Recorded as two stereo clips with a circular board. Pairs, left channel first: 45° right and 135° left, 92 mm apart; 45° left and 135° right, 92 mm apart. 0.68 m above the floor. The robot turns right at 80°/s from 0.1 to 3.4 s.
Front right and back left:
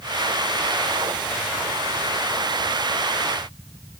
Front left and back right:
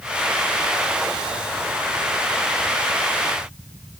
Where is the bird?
I don't hear a bird.